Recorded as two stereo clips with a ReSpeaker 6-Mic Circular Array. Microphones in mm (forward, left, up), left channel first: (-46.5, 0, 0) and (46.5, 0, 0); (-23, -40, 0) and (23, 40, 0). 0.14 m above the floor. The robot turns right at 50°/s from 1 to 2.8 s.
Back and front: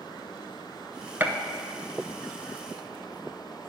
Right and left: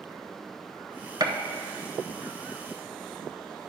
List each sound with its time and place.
1.2 s a gunshot: 60° left, 0.7 m; by 1.3 s 70° left, 0.7 m